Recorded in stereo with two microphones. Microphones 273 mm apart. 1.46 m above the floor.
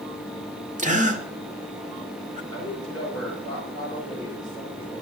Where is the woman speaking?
15° left (ahead or behind), 7.5 m.